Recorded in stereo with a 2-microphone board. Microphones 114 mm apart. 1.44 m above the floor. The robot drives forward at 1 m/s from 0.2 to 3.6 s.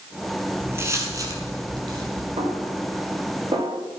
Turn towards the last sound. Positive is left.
turn(degrees=-45)  # may be behind; listen again after turning